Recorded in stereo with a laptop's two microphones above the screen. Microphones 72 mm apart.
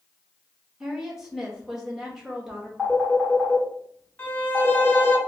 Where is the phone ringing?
Centre (ahead or behind), 1.9 m.